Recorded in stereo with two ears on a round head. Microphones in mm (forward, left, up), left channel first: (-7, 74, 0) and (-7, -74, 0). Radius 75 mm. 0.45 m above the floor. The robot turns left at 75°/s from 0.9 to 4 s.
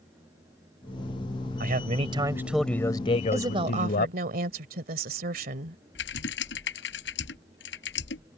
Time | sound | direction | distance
1.6 | a man speaking | 105° right | ?
3.3 | a woman speaking | 15° right | ?
6.0 | typing on a keyboard | 80° left | ?